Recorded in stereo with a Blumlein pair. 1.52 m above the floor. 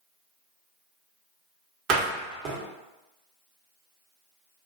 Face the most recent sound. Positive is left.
turn(degrees=-35)